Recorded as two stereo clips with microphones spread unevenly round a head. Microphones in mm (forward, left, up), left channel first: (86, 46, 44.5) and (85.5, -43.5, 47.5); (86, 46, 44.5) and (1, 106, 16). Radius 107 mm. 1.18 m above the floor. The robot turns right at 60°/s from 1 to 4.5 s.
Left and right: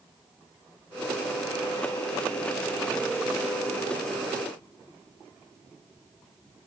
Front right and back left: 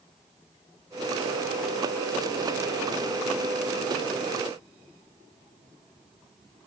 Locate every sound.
Only background noise.